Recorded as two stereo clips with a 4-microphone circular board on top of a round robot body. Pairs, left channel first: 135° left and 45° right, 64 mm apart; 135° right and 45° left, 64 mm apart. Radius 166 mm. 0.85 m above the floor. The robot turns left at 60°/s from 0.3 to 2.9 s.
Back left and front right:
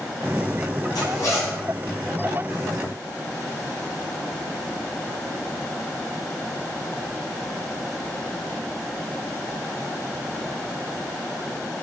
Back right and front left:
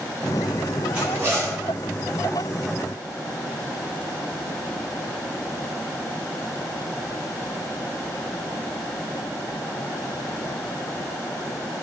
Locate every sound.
0.9 s a zipper: 115° left, 1.3 m; by 1.6 s 75° left, 1.3 m